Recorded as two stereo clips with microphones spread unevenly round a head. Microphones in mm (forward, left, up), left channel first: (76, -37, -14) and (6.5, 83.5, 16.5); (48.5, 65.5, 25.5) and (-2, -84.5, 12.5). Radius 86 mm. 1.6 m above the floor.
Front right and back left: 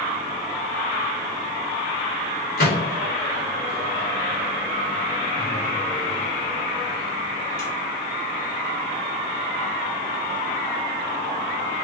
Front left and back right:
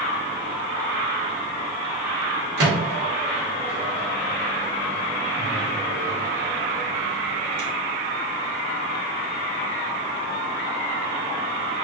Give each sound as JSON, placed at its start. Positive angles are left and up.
{"t": 2.6, "sound": "a microwave", "azimuth_deg": -100, "distance_m": 1.5}